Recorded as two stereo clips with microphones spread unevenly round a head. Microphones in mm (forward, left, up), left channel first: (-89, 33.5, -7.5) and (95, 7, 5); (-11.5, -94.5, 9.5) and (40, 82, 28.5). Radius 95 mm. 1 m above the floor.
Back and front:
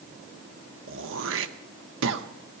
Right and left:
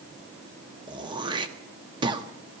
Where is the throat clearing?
10° left, 1.0 m.